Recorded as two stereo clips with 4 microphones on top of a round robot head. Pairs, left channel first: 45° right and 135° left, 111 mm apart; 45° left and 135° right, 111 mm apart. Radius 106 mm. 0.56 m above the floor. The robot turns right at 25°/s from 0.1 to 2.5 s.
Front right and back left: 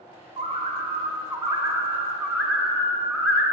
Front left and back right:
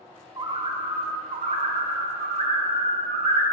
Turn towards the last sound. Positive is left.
turn(degrees=-135)